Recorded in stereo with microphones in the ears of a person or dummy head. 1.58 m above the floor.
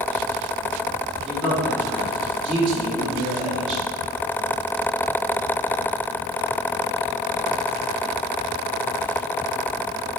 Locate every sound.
1.2 s a man speaking: centre (ahead or behind), 3 m